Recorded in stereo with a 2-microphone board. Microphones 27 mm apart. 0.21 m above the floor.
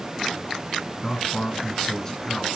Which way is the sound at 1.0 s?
25° left (ahead or behind).